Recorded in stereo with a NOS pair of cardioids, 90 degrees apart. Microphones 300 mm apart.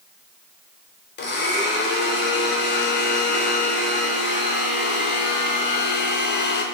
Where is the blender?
35° left, 0.7 m.